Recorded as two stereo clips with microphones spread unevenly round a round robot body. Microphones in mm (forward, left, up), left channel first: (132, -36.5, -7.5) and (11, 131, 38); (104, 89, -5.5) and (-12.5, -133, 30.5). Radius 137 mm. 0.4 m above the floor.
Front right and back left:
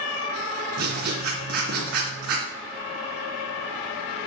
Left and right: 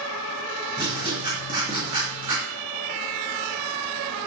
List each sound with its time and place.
0.8 s writing: 170° left, 2.5 m